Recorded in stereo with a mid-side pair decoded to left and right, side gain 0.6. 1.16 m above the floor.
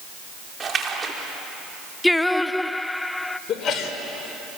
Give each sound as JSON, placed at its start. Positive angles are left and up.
{"t": 0.6, "sound": "a splash", "azimuth_deg": -30, "distance_m": 3.5}
{"t": 2.0, "sound": "singing", "azimuth_deg": 5, "distance_m": 0.5}
{"t": 3.5, "sound": "a sneeze", "azimuth_deg": 45, "distance_m": 4.5}